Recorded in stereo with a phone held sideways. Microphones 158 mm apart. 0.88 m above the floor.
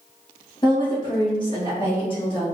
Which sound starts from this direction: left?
A woman speaking, at 0.6 s.